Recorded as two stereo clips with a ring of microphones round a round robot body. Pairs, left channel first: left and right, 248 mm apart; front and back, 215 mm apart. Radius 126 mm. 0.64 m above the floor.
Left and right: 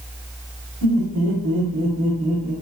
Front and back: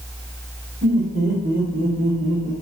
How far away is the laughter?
About 1.6 m.